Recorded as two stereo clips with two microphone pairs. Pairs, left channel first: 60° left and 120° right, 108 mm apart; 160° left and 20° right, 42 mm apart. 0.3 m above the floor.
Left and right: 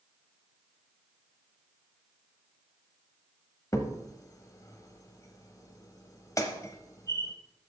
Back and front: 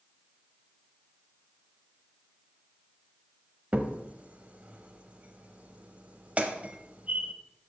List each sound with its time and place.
3.7 s a crack: 15° left, 0.9 m